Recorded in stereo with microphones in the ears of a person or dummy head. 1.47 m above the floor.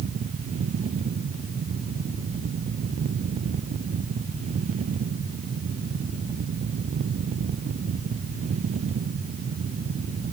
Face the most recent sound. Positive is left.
No sound to turn to.